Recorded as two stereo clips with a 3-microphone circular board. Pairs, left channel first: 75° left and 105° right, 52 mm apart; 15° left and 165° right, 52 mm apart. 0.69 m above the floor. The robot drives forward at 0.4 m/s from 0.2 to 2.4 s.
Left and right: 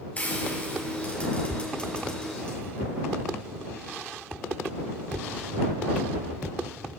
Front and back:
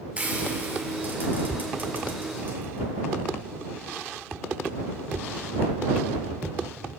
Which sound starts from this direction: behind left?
Frying, at 0.2 s.